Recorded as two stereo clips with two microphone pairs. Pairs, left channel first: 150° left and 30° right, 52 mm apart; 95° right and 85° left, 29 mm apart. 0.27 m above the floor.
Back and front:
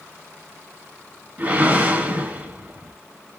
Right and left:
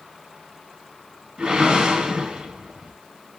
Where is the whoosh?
25° left, 1.0 m.